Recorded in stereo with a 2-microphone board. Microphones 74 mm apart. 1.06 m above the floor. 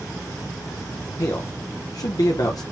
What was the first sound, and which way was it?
A man speaking, 55° left (ahead or behind).